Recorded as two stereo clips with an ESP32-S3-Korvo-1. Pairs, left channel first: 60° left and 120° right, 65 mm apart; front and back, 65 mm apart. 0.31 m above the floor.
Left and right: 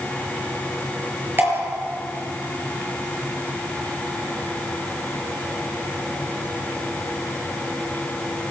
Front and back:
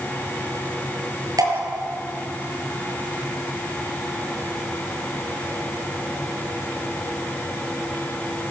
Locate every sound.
1.4 s dripping: 175° right, 6 m